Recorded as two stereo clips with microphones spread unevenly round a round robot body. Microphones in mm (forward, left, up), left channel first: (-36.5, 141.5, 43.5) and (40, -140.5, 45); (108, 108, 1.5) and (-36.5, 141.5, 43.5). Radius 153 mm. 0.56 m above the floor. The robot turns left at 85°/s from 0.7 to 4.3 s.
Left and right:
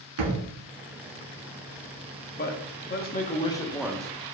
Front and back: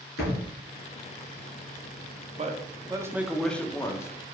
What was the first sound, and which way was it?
A thud, 45° right.